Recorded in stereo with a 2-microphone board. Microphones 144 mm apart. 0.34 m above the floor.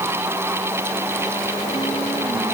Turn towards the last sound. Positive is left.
No sound to turn to.